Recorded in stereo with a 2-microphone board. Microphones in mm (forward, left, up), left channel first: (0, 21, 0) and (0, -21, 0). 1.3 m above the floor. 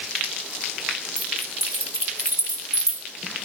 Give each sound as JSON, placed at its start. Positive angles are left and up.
{"t": 1.2, "sound": "keys jangling", "side_deg": -80, "distance_m": 5.0}